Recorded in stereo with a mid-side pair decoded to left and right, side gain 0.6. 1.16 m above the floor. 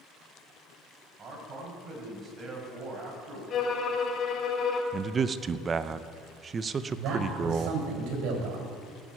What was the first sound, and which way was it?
A man speaking, 40° right.